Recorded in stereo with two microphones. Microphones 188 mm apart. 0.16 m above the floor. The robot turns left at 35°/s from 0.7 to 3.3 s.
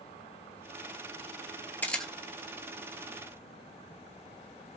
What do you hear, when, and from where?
1.8 s a camera shutter: 10° left (ahead or behind), 0.9 m; by 2.1 s centre (ahead or behind), 0.9 m